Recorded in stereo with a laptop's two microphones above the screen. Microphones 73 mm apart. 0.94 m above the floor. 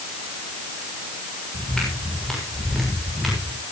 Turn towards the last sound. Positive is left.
turn(degrees=0)  # may be behind; listen again after turning